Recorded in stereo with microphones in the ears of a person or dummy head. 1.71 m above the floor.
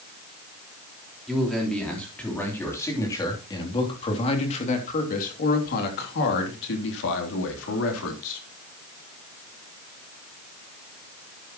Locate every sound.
1.3 s a man speaking: centre (ahead or behind), 4 m; by 8.4 s 80° left, 4 m